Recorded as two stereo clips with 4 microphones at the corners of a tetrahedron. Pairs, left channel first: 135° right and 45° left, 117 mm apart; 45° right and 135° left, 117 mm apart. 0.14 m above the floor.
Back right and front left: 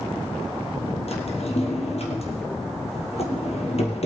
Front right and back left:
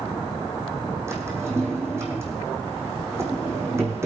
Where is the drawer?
160° right, 2.5 m.